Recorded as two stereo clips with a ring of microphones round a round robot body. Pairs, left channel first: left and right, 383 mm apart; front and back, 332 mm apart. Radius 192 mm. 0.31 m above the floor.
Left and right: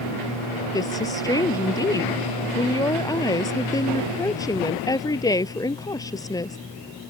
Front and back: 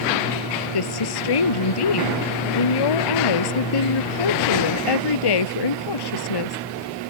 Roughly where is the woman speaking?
Ahead.